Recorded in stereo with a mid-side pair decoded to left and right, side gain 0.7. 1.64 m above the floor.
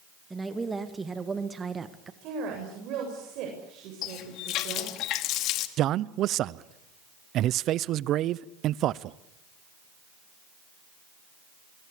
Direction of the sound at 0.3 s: 15° right.